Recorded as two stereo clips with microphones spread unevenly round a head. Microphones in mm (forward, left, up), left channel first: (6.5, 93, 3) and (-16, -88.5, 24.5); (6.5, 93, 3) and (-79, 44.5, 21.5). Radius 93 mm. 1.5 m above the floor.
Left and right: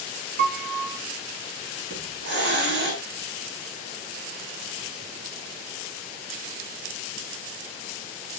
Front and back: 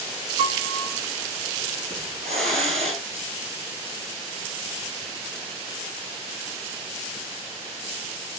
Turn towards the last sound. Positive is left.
turn(degrees=-125)